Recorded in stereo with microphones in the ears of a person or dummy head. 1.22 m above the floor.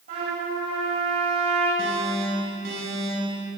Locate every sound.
0.1 s a trumpet: 50° right (ahead or behind), 8.5 m
1.8 s an alarm: 70° right (ahead or behind), 8 m